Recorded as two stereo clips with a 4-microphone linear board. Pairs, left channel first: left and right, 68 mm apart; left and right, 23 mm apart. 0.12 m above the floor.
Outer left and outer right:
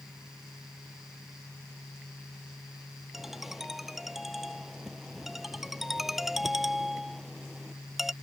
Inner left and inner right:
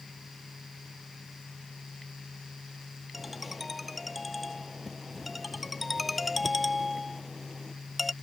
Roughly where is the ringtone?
Centre.